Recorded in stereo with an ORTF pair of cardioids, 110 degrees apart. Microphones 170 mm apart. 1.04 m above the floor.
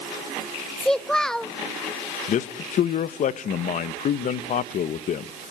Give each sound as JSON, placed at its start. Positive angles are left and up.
{"t": 0.8, "sound": "a child speaking", "azimuth_deg": 5, "distance_m": 0.7}
{"t": 2.3, "sound": "a man speaking", "azimuth_deg": 50, "distance_m": 0.9}